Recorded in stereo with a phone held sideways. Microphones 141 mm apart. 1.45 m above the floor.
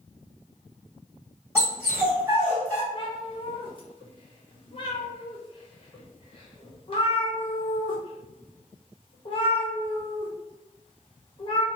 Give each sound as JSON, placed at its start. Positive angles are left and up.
{"t": 1.6, "sound": "a dog barking", "side_deg": -15, "distance_m": 1.9}
{"t": 2.9, "sound": "a cat meowing", "side_deg": 35, "distance_m": 0.9}